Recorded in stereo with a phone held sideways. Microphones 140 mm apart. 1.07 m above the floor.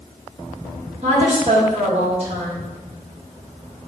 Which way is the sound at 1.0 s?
50° right (ahead or behind).